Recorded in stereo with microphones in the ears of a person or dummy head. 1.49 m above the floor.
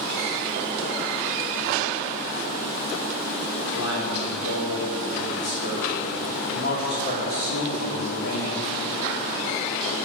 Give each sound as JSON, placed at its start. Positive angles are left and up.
{"t": 3.7, "sound": "a man speaking", "side_deg": 75, "distance_m": 5.0}